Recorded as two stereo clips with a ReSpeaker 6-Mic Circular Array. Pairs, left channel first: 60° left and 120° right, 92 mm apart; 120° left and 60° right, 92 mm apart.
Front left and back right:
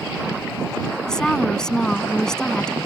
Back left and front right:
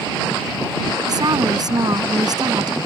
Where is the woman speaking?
20° right.